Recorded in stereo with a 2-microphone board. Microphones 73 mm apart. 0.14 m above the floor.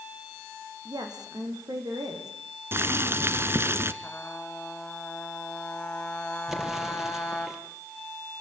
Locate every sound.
0.8 s a woman speaking: 70° right (ahead or behind), 6 m; by 2.3 s 60° right (ahead or behind), 6 m
2.7 s boiling: 35° right (ahead or behind), 1.2 m
4.0 s a trumpet: 20° left (ahead or behind), 4 m
6.5 s an explosion: 5° right (ahead or behind), 4 m